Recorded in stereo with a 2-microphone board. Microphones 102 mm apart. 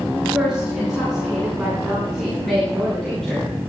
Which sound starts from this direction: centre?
A woman speaking, at 0.2 s.